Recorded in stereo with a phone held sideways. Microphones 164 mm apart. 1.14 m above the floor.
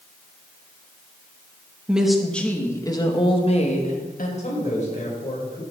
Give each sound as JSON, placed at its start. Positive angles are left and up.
{"t": 1.9, "sound": "a woman speaking", "side_deg": -5, "distance_m": 1.6}
{"t": 4.4, "sound": "a man speaking", "side_deg": 45, "distance_m": 4.5}